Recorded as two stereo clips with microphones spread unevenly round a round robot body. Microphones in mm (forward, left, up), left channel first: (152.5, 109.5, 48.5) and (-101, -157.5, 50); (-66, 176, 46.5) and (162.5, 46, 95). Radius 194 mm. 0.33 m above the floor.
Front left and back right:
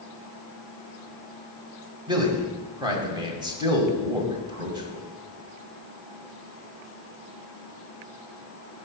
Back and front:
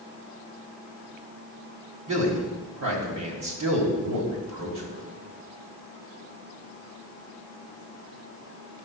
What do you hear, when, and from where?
2.1 s a man speaking: 55° right, 2.5 m